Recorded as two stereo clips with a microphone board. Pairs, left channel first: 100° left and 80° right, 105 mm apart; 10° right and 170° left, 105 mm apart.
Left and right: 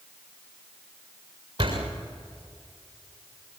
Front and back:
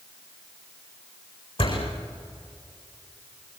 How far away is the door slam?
About 7.5 m.